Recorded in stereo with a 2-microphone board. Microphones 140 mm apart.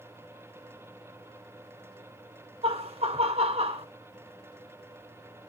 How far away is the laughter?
About 1.4 m.